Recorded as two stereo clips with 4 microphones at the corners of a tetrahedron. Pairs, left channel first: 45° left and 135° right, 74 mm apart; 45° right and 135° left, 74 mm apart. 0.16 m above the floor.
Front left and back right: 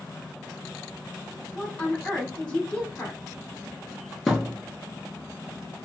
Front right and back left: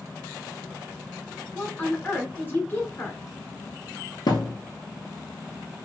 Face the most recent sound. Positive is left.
turn(degrees=-45)